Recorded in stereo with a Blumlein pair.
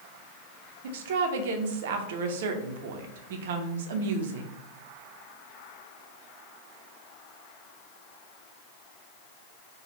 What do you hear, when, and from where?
0.8 s a woman speaking: 55° right, 0.5 m